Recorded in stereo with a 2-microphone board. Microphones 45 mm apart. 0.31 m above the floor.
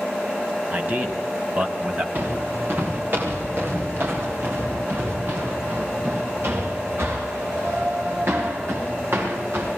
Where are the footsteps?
50° right (ahead or behind), 6.5 m; by 9.7 s 65° right (ahead or behind), 12.5 m.